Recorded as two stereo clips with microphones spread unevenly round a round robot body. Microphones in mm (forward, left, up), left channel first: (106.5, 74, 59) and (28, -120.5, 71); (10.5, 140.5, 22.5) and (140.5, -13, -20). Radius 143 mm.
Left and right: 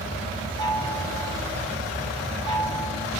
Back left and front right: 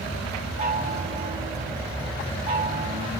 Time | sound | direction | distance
0.6 | a chime | straight ahead | 5 m